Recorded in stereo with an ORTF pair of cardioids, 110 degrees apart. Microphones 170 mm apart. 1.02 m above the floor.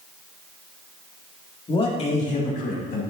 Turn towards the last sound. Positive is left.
turn(degrees=60)